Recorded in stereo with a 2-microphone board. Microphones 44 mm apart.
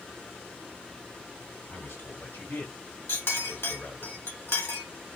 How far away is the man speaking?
About 3 m.